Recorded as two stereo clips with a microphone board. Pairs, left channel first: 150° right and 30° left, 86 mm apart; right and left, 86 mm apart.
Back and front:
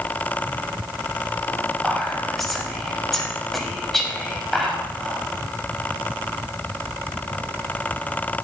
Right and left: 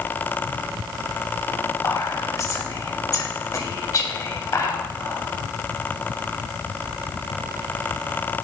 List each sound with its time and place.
1.8 s whispering: 60° right, 2 m